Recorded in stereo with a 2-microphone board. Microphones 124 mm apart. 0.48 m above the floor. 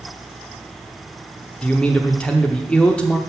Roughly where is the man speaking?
Centre.